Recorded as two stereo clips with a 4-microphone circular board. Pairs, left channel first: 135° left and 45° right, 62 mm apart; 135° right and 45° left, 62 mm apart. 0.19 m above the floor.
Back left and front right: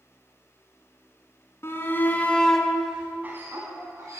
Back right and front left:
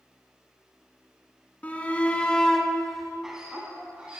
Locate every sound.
1.6 s a shout: 165° left, 2 m; by 4.2 s 20° right, 2.5 m